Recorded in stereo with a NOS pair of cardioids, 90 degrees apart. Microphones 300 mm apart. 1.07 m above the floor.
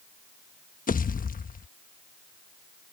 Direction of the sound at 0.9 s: 30° left.